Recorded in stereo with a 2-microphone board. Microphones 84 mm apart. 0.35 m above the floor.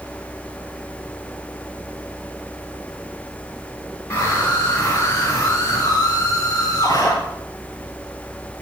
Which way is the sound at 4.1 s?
35° left (ahead or behind).